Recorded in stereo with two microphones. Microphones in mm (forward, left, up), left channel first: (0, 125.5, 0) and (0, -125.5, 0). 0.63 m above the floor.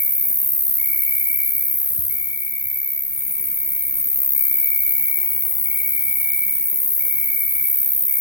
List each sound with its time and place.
0.0 s an insect: 50° right (ahead or behind), 1.7 m